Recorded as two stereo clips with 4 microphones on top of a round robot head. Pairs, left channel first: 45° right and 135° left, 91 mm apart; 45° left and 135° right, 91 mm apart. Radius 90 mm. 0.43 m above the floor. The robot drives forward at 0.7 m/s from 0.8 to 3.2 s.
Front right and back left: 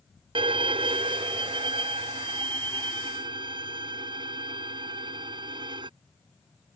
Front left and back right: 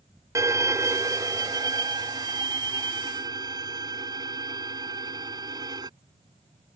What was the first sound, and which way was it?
A violin, 165° left.